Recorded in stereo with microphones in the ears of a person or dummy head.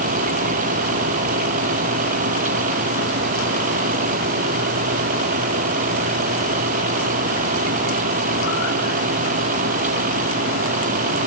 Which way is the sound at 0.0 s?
40° right (ahead or behind).